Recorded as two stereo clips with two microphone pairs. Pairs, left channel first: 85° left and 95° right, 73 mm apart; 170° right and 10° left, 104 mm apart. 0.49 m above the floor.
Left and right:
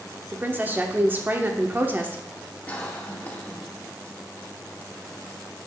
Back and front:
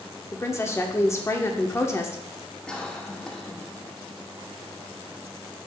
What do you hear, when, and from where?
0.3 s a woman speaking: 130° right, 0.8 m
2.7 s a cough: 120° left, 1.1 m